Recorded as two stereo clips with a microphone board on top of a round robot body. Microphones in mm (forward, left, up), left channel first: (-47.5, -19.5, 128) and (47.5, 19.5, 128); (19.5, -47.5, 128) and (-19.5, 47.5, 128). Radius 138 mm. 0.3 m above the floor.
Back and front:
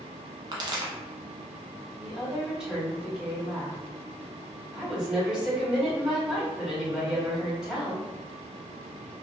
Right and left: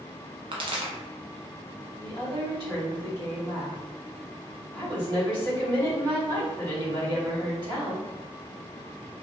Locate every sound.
0.5 s a pop: 70° left, 0.6 m
2.0 s a woman speaking: 105° left, 2.0 m